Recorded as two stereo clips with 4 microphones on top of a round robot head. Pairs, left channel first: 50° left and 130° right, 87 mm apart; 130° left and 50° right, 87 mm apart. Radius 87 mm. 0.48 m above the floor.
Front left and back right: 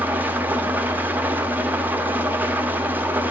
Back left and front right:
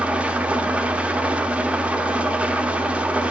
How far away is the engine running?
About 0.7 m.